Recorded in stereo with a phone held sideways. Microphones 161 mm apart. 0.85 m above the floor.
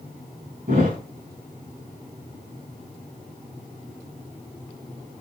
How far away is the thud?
About 4 m.